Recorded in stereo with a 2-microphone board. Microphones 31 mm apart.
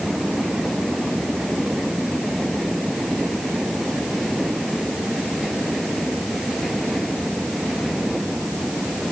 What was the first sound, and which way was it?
Only background noise.